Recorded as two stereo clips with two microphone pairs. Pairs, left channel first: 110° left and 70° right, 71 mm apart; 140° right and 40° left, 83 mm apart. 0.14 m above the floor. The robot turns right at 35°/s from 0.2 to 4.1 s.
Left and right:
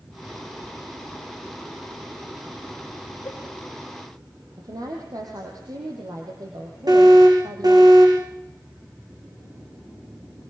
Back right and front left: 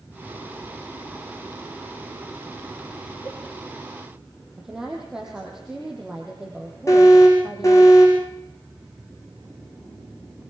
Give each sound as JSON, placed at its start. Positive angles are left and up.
{"t": 3.2, "sound": "a cowbell", "azimuth_deg": 165, "distance_m": 4.5}
{"t": 4.6, "sound": "a woman speaking", "azimuth_deg": -45, "distance_m": 4.5}
{"t": 6.9, "sound": "an alarm", "azimuth_deg": -90, "distance_m": 9.5}